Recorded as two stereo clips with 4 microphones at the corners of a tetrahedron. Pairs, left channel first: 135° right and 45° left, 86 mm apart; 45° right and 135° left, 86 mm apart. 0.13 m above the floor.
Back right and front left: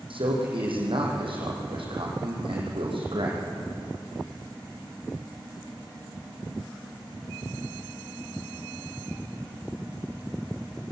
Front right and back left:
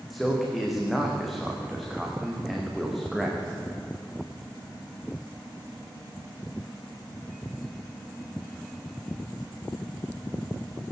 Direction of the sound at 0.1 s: 45° left.